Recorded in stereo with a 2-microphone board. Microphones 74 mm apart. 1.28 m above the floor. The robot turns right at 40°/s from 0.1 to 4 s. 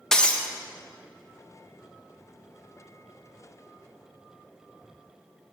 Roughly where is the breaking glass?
Centre.